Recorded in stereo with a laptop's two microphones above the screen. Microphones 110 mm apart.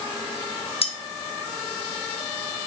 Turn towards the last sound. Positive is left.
turn(degrees=60)  # may be behind; listen again after turning